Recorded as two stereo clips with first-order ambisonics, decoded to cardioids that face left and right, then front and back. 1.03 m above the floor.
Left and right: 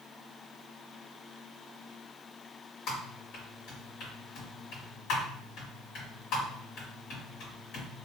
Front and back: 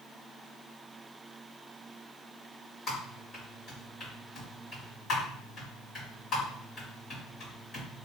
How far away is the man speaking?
No man speaking in this recording.